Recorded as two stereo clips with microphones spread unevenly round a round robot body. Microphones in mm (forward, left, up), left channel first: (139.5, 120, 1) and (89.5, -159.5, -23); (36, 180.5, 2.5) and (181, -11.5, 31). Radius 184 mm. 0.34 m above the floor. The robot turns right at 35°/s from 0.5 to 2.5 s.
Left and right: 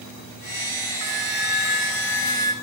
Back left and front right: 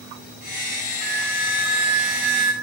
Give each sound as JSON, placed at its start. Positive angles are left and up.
{"t": 1.0, "sound": "a flute", "azimuth_deg": -100, "distance_m": 1.4}